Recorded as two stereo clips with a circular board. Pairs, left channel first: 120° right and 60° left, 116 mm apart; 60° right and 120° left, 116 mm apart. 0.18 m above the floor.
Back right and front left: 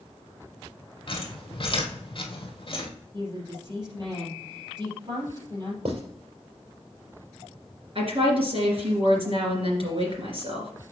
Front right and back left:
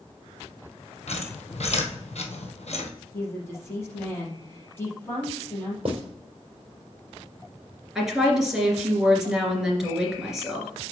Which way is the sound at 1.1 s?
75° right.